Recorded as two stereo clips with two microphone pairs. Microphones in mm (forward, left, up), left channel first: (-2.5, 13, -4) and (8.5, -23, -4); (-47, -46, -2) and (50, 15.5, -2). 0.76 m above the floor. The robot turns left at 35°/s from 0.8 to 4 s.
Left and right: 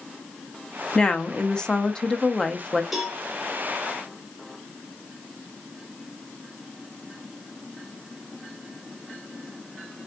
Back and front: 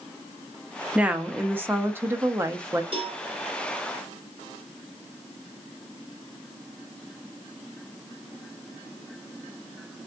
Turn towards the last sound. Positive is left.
turn(degrees=-20)